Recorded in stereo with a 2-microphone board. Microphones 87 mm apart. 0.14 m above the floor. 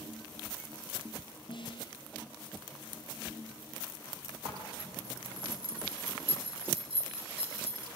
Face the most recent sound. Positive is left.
turn(degrees=-80)